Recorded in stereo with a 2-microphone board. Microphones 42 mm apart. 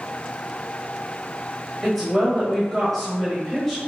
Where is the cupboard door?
I don't hear a cupboard door.